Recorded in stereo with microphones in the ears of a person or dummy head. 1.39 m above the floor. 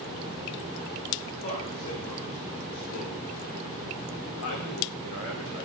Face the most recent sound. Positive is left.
turn(degrees=80)